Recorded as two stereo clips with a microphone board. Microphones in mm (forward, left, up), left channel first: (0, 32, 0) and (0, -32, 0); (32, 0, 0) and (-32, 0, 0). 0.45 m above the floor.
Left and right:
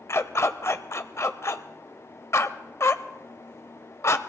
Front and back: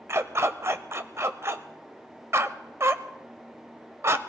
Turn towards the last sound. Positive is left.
turn(degrees=135)